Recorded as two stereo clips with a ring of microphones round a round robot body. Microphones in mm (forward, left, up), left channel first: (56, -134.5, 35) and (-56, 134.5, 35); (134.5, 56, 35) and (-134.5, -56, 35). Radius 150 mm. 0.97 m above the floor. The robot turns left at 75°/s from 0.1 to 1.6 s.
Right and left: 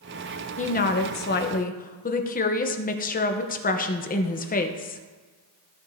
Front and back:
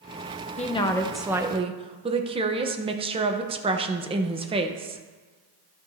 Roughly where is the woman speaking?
Ahead right.